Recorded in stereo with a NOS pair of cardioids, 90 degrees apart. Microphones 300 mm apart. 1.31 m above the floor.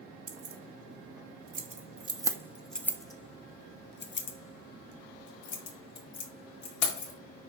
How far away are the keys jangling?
About 1.7 m.